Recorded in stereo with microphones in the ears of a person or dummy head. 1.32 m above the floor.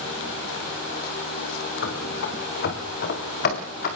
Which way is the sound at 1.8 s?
75° left (ahead or behind).